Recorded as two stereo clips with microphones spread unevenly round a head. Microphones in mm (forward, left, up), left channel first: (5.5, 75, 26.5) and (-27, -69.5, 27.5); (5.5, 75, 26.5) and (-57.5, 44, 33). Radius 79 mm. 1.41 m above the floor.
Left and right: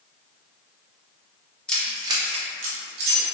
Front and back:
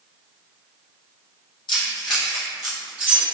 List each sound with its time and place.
1.7 s keys jangling: 5° right, 0.6 m; by 3.2 s 80° right, 1.4 m